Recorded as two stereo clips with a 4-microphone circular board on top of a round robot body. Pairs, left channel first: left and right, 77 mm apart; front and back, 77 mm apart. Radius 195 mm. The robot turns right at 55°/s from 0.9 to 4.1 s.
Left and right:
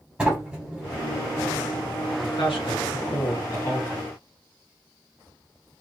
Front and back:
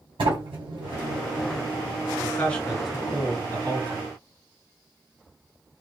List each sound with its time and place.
0.2 s a sliding door: 170° right, 1.5 m; by 3.2 s 45° right, 1.5 m
2.2 s a man speaking: 60° left, 1.9 m; by 4.0 s 165° left, 1.9 m